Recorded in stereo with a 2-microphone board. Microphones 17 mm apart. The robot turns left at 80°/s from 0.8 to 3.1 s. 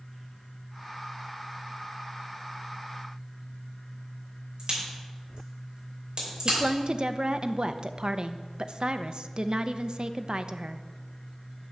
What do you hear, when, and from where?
4.6 s a crack: 45° right (ahead or behind), 5 m
6.5 s a woman speaking: 50° right (ahead or behind), 0.5 m